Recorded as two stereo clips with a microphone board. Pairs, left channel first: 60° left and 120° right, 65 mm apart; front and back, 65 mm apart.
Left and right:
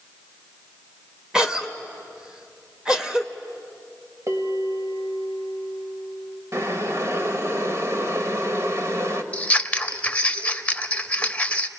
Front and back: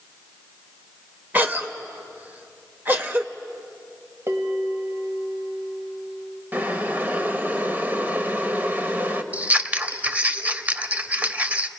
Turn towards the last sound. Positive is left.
turn(degrees=120)